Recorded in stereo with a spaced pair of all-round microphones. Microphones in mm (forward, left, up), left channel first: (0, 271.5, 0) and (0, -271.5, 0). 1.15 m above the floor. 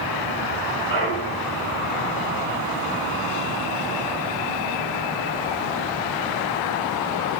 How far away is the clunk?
About 5.5 m.